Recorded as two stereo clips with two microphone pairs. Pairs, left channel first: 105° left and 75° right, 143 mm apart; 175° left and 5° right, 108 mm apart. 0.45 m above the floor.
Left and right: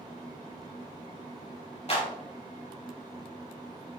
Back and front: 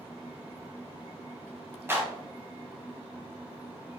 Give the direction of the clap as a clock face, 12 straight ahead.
10 o'clock.